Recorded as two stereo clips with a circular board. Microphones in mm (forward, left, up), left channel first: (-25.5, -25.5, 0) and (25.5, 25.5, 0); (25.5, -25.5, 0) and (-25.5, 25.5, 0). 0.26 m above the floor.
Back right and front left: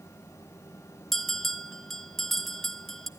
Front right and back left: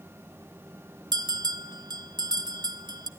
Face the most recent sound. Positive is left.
turn(degrees=140)